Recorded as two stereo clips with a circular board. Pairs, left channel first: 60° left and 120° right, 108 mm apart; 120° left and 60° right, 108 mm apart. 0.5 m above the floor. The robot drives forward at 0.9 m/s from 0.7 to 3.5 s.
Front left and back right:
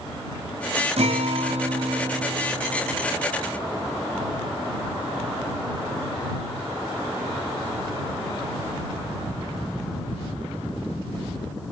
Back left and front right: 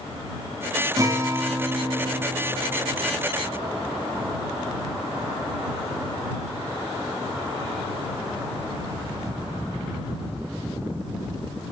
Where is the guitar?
120° right, 1.9 m; by 3.2 s 150° right, 3.5 m.